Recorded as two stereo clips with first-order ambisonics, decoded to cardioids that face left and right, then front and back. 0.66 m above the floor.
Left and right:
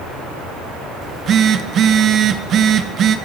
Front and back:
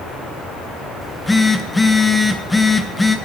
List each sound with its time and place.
1.0 s a phone buzzing: 80° right, 0.5 m